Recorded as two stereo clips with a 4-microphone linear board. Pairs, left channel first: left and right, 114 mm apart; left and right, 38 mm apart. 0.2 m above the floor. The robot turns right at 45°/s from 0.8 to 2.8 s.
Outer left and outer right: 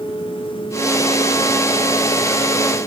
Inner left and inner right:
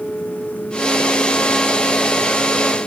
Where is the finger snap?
I don't hear a finger snap.